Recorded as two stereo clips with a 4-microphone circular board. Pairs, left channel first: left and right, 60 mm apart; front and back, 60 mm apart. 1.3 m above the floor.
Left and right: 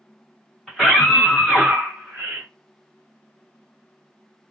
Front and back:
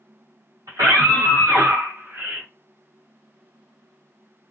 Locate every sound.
0.7 s a scream: straight behind, 1.5 m; by 2.5 s 115° right, 1.0 m